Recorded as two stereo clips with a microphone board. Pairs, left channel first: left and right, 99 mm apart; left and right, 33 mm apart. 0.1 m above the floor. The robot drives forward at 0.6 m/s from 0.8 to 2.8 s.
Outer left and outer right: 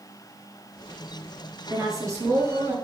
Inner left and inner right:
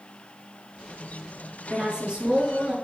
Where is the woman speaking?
30° right (ahead or behind), 1.9 m.